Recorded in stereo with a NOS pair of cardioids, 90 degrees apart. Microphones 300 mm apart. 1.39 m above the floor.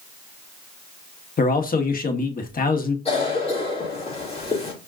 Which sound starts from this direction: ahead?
A cough, at 3.0 s.